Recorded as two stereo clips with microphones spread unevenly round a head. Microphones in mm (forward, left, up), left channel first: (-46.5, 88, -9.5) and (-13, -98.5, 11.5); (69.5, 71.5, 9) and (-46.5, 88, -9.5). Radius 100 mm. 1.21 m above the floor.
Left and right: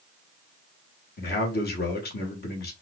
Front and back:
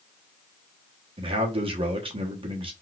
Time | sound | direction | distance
1.2 | a man speaking | 135° left | 1.3 m